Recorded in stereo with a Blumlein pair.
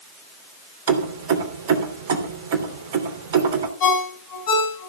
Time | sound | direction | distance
0.9 | keys jangling | 55° right | 3 m
3.8 | a ringtone | 45° left | 6.5 m